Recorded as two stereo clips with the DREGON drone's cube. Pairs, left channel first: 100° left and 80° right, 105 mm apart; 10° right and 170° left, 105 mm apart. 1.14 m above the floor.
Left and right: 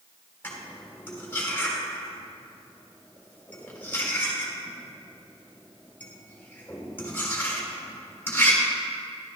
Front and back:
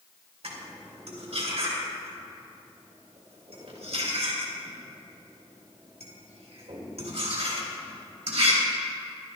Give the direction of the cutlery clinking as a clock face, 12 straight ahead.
6 o'clock.